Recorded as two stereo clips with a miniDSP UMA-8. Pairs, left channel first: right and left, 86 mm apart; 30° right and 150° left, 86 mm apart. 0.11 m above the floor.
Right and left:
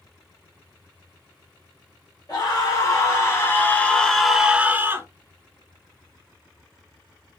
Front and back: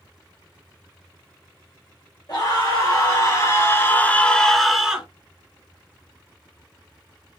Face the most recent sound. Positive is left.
turn(degrees=85)